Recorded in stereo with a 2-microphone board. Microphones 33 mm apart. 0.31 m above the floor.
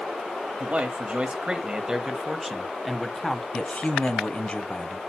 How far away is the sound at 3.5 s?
About 1.8 m.